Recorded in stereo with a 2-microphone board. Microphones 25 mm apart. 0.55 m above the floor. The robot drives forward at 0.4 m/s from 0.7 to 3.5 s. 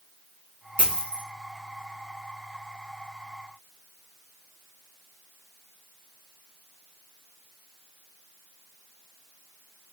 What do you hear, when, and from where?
0.8 s a dropped coin: 45° left (ahead or behind), 1.4 m; by 1.2 s 50° left (ahead or behind), 1.2 m